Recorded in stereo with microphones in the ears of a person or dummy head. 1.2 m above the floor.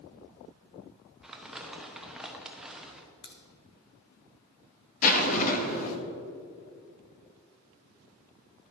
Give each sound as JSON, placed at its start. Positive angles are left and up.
{"t": 1.2, "sound": "crumpling", "side_deg": 0, "distance_m": 0.8}
{"t": 3.2, "sound": "a crack", "side_deg": 30, "distance_m": 0.8}
{"t": 5.0, "sound": "a zipper", "side_deg": 45, "distance_m": 0.9}